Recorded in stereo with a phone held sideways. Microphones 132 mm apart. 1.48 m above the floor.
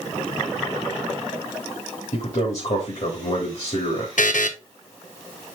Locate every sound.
2.1 s a man speaking: 60° left (ahead or behind), 3 m
4.2 s a buzzer: 75° left (ahead or behind), 1.0 m